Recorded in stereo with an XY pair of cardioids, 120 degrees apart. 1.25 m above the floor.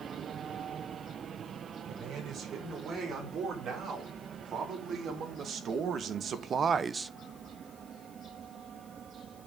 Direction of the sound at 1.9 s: 60° right.